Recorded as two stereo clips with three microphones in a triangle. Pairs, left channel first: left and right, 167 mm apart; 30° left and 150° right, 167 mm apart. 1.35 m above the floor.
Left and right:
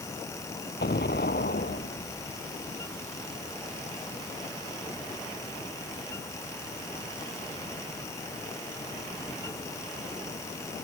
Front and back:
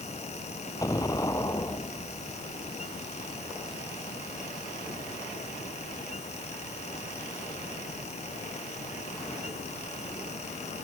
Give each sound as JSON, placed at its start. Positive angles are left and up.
{"t": 0.8, "sound": "an explosion", "azimuth_deg": 100}